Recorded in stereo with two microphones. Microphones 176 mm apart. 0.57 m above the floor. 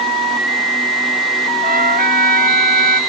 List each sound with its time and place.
1.6 s a trumpet: 55° right (ahead or behind)